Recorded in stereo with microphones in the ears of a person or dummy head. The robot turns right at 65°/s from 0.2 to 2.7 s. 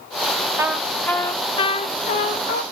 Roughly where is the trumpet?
Ahead.